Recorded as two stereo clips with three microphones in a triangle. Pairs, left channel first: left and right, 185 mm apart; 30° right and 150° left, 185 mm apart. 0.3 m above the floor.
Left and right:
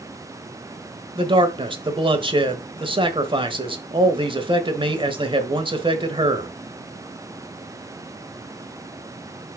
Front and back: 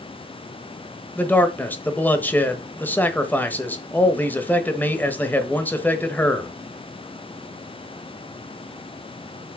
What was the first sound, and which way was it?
A man speaking, 100° right.